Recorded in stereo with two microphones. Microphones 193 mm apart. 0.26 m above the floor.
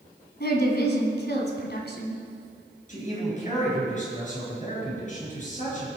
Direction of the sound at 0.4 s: 55° left (ahead or behind).